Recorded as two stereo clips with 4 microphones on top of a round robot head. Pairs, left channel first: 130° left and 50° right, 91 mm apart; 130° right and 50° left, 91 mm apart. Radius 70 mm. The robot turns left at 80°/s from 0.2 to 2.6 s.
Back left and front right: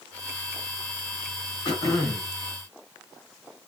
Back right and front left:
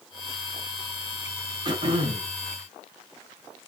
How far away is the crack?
I don't hear a crack.